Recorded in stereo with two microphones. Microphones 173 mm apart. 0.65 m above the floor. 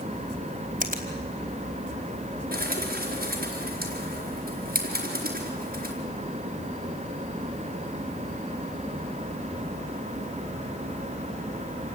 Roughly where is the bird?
Right.